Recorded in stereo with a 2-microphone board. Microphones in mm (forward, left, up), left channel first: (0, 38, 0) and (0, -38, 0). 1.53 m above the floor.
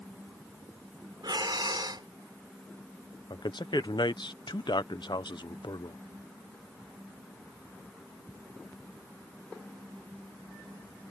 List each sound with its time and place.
1.2 s breathing: 70° right (ahead or behind)
3.3 s a man speaking: 75° left (ahead or behind)